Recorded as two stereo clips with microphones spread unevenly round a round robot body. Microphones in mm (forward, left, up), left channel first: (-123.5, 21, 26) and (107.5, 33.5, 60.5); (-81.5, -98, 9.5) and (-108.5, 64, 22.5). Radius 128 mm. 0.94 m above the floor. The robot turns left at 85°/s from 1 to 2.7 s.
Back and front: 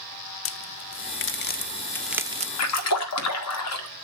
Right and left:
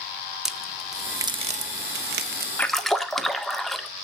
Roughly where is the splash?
Behind.